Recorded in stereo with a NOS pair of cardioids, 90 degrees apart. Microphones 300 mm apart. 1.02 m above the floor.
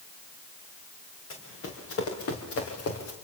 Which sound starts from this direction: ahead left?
Running footsteps, at 1.3 s.